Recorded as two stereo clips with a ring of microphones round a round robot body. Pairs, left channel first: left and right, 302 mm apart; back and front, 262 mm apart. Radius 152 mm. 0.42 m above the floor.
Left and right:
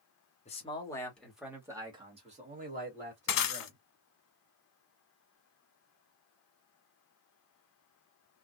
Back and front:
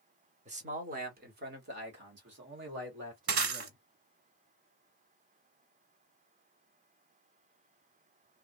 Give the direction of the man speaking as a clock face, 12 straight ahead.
11 o'clock.